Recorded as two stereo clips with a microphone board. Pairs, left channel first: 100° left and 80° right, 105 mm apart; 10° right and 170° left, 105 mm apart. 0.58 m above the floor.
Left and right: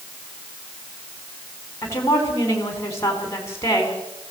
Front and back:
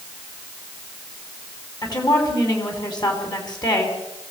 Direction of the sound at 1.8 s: 40° left.